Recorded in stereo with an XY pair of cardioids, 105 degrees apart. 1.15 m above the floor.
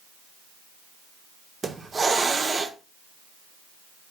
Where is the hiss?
30° right, 0.5 m.